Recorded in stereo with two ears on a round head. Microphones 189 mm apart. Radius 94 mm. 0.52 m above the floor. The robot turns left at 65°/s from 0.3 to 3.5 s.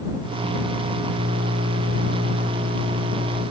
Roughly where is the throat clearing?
I don't hear throat clearing.